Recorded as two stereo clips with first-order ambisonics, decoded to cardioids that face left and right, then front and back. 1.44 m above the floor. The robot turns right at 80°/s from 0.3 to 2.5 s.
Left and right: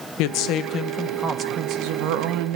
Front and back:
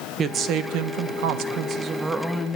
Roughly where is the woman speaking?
Behind left.